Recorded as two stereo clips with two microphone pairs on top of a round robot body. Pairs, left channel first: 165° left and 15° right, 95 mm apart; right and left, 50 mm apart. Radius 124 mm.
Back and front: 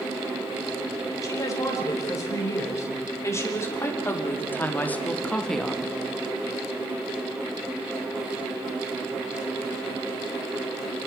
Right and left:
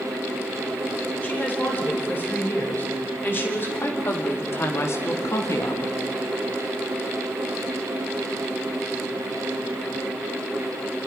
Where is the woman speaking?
140° right, 4.5 m; by 6.0 s 100° right, 1.2 m.